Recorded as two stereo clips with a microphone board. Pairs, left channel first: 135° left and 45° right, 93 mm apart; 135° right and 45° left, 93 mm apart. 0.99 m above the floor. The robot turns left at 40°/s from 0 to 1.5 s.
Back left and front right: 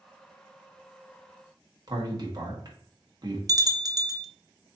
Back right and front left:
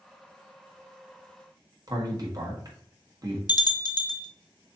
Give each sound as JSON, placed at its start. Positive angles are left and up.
{"t": 1.9, "sound": "a man speaking", "azimuth_deg": 0, "distance_m": 1.5}
{"t": 3.5, "sound": "a bell", "azimuth_deg": -95, "distance_m": 0.5}